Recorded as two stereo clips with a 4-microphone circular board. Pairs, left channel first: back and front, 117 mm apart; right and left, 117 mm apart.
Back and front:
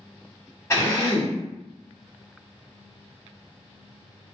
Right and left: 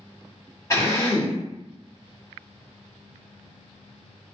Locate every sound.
0.7 s a drill: 135° right, 1.4 m